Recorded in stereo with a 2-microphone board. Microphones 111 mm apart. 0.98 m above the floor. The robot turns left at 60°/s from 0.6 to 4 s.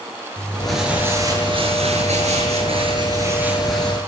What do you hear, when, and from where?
0.4 s crumpling: 5° left, 9 m; by 4.0 s 165° left, 9 m